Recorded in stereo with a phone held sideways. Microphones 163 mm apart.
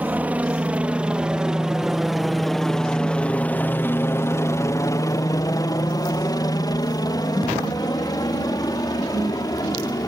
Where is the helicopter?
10° right (ahead or behind); by 10.1 s 25° left (ahead or behind).